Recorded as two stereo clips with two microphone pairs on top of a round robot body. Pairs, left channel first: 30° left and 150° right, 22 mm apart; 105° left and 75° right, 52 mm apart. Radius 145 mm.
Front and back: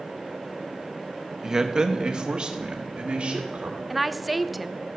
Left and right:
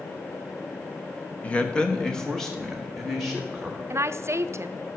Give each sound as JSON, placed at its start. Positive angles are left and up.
{"t": 1.4, "sound": "a man speaking", "azimuth_deg": 160, "distance_m": 1.2}
{"t": 3.9, "sound": "a woman speaking", "azimuth_deg": -75, "distance_m": 0.6}